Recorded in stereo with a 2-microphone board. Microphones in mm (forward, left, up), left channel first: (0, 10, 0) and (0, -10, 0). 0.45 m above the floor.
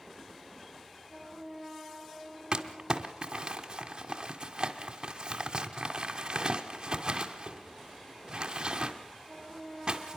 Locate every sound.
2.5 s crumpling: 35° right (ahead or behind), 1.7 m